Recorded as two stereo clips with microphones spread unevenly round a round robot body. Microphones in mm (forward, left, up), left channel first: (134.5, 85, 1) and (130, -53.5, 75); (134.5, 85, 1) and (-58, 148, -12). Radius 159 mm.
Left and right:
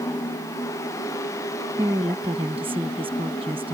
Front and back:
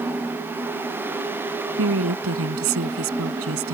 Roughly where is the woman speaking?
Behind.